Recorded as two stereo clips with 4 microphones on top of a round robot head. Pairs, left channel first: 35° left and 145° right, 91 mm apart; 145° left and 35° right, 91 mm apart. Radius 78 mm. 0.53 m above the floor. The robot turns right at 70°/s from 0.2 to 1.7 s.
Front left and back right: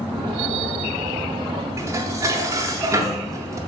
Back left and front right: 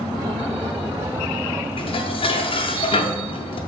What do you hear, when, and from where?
1.8 s dishes clattering: 160° left, 0.9 m